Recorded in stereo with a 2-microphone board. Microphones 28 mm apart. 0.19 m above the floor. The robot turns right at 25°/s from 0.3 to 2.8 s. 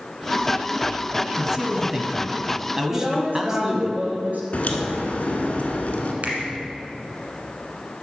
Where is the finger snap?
55° right (ahead or behind), 1.4 m.